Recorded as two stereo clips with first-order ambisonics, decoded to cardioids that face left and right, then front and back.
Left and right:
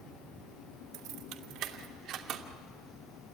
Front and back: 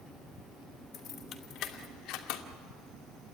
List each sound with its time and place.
0.9 s keys jangling: 60° right, 2 m; by 2.4 s 30° right, 1.8 m